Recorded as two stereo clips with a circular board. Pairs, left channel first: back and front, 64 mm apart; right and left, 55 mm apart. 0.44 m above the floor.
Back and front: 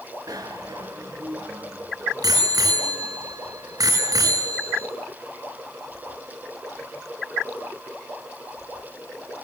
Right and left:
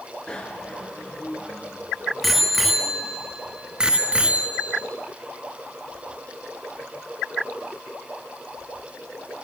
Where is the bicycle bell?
15° right, 4.5 m; by 4.9 s 25° left, 4 m.